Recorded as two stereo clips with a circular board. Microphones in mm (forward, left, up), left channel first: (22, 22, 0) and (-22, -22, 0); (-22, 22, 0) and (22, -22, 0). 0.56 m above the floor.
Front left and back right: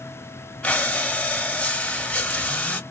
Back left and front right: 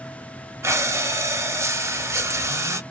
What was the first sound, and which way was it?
Breathing, 20° right.